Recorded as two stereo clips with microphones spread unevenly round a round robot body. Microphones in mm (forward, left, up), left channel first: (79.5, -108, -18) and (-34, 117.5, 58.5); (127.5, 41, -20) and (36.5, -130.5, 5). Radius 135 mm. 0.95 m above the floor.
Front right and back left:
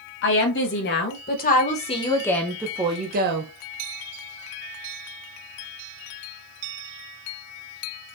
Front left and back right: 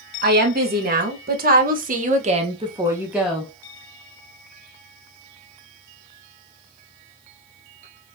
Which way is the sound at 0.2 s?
80° right.